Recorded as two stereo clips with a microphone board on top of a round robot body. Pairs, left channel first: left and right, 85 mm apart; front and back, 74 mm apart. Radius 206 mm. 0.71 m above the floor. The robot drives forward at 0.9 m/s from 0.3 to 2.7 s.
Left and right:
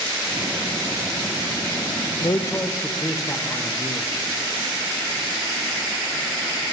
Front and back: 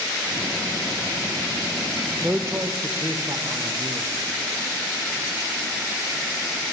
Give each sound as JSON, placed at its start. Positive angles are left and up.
{"t": 2.2, "sound": "a man speaking", "azimuth_deg": 105, "distance_m": 0.7}